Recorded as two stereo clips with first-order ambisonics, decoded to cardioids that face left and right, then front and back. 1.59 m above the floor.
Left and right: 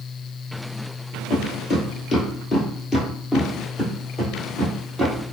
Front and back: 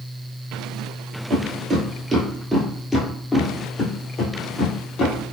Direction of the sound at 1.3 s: 145° left.